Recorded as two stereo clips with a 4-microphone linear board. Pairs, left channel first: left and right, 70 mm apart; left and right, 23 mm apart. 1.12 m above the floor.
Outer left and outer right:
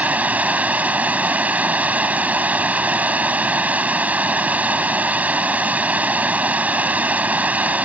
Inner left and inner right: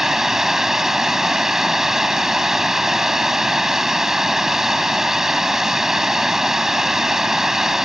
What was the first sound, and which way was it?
Running water, 20° right (ahead or behind).